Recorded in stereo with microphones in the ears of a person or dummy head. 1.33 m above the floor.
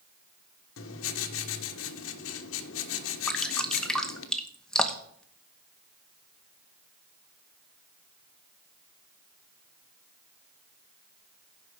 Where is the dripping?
5° left (ahead or behind), 1.0 m.